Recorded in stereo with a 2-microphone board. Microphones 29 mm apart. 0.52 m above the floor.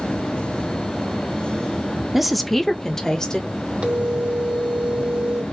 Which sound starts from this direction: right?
A phone ringing, at 3.8 s.